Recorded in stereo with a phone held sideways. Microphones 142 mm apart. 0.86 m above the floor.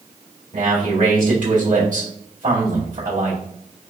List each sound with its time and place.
0.5 s a man speaking: 65° right (ahead or behind), 2 m